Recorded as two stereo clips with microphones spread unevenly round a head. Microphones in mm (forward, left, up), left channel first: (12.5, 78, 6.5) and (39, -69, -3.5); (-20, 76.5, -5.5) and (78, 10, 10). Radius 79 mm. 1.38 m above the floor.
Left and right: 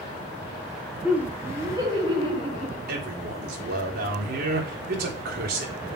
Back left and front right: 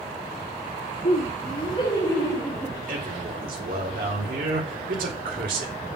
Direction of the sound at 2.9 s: 60° right.